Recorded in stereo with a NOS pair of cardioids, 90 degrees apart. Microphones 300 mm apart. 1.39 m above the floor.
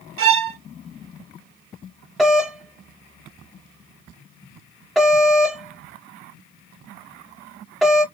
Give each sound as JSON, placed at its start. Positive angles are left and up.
{"t": 0.2, "sound": "a violin", "azimuth_deg": -45, "distance_m": 0.6}
{"t": 2.2, "sound": "a doorbell", "azimuth_deg": 0, "distance_m": 0.7}